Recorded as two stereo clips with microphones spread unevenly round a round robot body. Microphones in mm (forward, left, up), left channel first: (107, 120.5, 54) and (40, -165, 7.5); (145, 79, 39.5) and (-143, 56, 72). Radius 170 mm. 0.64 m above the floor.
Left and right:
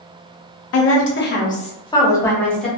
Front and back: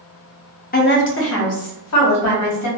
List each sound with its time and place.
0.7 s a woman speaking: 50° left, 0.7 m; by 2.7 s 15° right, 1.3 m